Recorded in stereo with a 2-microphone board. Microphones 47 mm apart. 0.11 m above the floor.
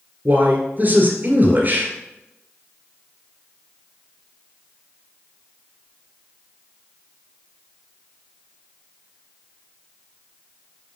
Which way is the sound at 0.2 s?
40° right (ahead or behind).